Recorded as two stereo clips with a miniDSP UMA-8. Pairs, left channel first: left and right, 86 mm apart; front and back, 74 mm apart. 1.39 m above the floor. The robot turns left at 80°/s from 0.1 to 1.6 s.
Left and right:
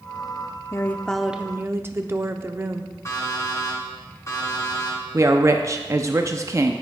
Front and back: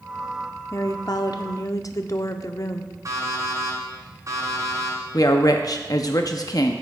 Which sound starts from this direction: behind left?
An alarm clock, at 3.0 s.